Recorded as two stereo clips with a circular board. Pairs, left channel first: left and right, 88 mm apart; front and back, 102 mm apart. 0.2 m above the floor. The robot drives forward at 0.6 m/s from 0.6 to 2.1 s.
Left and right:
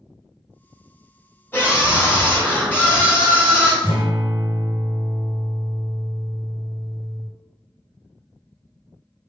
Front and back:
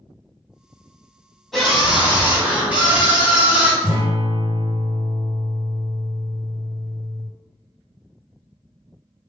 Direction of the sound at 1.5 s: 90° left.